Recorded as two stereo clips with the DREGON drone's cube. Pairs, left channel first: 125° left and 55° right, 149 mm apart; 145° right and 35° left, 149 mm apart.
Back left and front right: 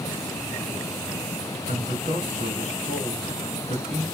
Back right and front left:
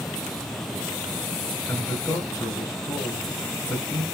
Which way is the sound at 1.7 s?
80° right.